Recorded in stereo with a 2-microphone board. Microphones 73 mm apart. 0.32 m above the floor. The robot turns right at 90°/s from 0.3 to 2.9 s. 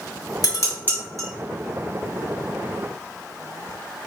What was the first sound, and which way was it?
Dishes clattering, 50° left (ahead or behind).